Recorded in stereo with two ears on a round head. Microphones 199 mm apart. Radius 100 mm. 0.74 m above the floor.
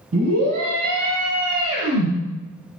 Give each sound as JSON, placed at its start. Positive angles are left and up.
{"t": 0.1, "sound": "a scream", "side_deg": -80, "distance_m": 5.5}